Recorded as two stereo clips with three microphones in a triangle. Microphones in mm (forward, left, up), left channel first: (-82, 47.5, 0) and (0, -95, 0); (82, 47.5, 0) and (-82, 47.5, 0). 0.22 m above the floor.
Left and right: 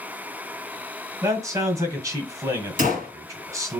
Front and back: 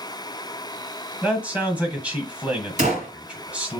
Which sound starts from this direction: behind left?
A gunshot, at 2.8 s.